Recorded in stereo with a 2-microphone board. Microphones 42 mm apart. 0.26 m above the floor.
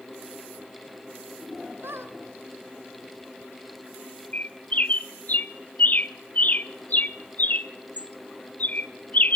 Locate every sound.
1.8 s a squeak: 75° right (ahead or behind), 1.9 m
4.3 s a bird: 45° left (ahead or behind), 0.6 m